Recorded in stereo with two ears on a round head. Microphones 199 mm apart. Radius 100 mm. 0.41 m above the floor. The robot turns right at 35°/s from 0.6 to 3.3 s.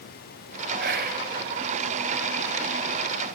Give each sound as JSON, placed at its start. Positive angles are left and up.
{"t": 0.8, "sound": "whispering", "side_deg": -50, "distance_m": 2.5}